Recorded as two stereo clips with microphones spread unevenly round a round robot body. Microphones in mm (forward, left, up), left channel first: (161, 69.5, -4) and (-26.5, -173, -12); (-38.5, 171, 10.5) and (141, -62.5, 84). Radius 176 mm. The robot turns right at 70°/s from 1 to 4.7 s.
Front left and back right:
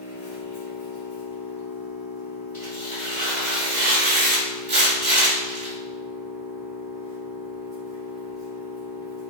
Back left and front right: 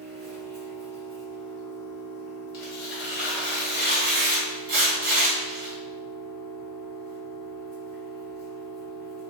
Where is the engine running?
25° left, 1.0 m; by 9.3 s 80° right, 1.0 m.